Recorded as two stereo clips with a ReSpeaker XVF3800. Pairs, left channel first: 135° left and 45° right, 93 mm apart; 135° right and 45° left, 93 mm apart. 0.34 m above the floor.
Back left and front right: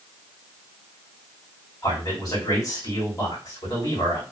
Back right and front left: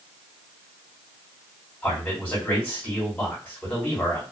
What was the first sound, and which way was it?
A man speaking, 155° left.